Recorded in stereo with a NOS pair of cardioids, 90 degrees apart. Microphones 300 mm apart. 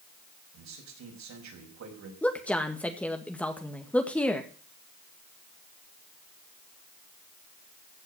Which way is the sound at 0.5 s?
65° right.